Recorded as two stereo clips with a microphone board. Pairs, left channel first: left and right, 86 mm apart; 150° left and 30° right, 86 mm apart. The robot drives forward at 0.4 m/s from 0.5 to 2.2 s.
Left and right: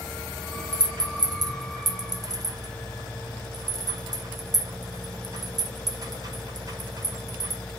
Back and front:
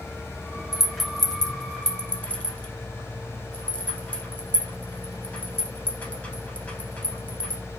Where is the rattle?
115° right, 1.1 m; by 7.6 s 140° right, 1.4 m.